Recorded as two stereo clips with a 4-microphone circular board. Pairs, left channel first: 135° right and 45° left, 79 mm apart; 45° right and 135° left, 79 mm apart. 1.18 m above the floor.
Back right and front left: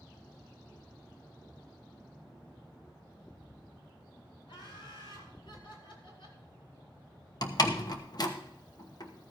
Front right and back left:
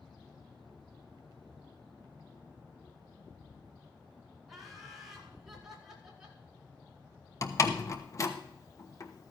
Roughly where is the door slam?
Right.